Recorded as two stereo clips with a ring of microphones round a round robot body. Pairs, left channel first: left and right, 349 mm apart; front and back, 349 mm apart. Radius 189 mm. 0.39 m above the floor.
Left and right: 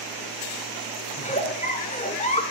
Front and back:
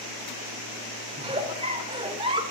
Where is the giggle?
125° left, 1.2 m.